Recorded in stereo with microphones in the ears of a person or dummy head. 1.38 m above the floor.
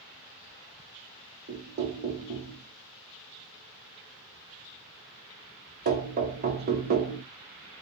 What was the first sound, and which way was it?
Knocking, 45° right (ahead or behind).